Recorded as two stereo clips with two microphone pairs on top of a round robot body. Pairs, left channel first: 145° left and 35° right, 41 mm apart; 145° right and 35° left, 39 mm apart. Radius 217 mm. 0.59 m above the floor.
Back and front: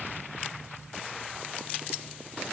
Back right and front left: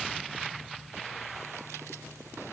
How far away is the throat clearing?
I don't hear throat clearing.